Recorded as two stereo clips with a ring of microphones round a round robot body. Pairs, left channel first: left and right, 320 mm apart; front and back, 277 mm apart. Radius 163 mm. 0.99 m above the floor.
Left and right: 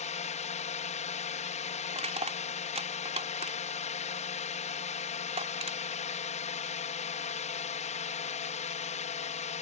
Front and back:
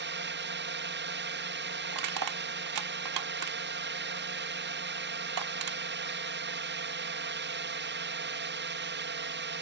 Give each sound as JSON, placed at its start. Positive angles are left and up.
{"t": 0.0, "sound": "a drone", "azimuth_deg": 150}
{"t": 1.9, "sound": "crushing", "azimuth_deg": -160}